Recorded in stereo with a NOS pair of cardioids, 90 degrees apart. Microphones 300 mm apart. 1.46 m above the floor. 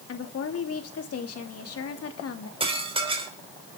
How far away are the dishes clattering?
About 3.5 m.